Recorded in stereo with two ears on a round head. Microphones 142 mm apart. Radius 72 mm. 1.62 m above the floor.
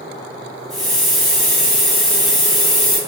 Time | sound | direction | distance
0.7 | a hiss | centre (ahead or behind) | 1.1 m